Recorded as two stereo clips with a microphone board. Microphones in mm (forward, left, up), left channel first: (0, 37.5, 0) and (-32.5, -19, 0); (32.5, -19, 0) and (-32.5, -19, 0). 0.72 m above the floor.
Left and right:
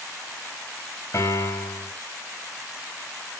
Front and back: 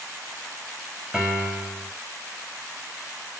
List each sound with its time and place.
1.1 s a piano: 100° left, 5.5 m